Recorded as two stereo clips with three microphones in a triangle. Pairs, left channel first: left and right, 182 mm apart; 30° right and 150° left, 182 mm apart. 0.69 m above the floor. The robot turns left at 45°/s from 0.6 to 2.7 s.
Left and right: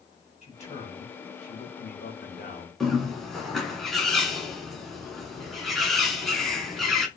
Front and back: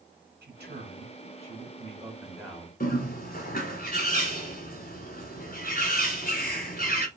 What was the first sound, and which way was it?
A man speaking, 140° left.